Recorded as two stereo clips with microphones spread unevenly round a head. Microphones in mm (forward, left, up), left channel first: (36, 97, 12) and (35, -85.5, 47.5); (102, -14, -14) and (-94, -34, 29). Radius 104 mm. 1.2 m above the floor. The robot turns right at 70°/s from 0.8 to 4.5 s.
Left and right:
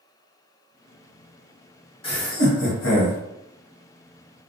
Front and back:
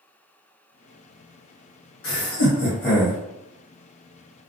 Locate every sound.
2.0 s laughter: 30° left, 1.3 m; by 3.2 s 110° left, 1.3 m